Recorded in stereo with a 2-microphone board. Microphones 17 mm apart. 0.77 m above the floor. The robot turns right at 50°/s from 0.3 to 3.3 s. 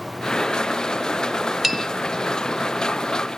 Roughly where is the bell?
Centre.